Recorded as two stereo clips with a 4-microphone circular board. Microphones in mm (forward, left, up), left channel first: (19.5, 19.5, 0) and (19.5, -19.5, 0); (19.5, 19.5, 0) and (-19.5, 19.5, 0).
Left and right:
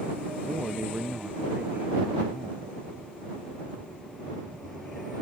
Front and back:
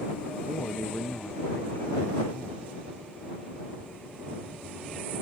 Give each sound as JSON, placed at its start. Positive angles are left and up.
{"t": 0.5, "sound": "a man speaking", "azimuth_deg": -35}